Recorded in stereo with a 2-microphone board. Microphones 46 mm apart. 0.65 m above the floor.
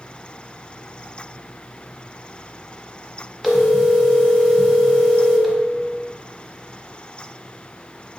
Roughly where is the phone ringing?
Centre.